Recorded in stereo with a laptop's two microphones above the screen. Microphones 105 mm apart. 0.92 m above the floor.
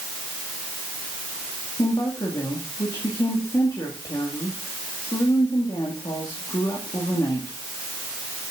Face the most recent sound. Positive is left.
turn(degrees=45)  # may be behind; listen again after turning